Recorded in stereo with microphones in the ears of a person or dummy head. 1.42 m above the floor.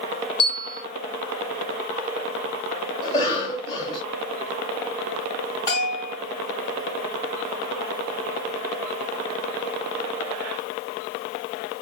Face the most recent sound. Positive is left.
turn(degrees=25)  # may be behind; listen again after turning